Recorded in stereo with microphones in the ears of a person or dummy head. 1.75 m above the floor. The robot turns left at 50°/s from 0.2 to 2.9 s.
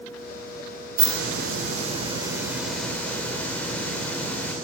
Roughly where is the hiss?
Right.